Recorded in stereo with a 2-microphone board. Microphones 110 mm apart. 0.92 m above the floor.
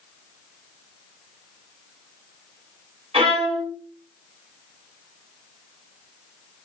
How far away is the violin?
About 3 m.